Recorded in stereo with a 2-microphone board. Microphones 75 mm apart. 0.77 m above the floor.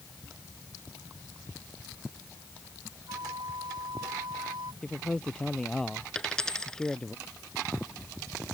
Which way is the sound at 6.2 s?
10° left (ahead or behind).